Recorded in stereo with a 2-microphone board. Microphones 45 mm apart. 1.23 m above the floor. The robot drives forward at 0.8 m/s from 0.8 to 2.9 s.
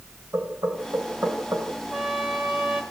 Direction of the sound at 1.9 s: 15° right (ahead or behind).